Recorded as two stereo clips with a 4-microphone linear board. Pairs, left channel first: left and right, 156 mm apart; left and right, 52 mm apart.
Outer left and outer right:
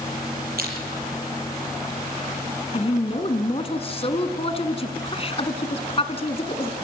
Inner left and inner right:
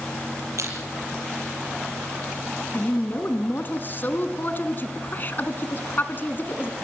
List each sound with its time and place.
0.6 s crushing: 75° right (ahead or behind), 6 m
2.7 s a woman speaking: 40° left (ahead or behind), 1.6 m